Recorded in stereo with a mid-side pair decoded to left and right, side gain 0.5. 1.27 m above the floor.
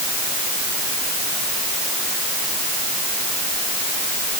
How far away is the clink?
No clink in this recording.